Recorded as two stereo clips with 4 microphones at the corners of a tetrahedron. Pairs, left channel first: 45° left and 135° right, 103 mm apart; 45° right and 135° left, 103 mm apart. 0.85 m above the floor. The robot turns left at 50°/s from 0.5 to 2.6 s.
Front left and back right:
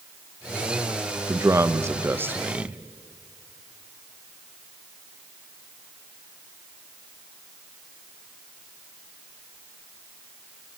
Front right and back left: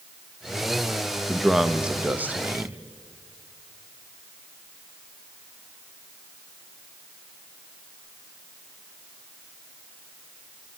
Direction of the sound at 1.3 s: 125° right.